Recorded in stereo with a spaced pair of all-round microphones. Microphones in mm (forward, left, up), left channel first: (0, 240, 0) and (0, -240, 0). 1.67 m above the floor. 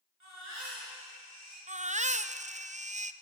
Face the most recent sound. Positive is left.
turn(degrees=-15)  # may be behind; listen again after turning